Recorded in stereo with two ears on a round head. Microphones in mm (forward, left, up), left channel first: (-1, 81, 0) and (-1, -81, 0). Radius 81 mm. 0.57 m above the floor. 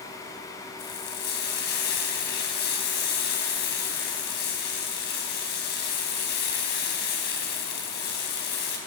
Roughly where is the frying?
Left.